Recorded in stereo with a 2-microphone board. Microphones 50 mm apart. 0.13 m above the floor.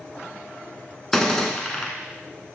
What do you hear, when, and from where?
1.1 s a gunshot: 10° left (ahead or behind), 1.1 m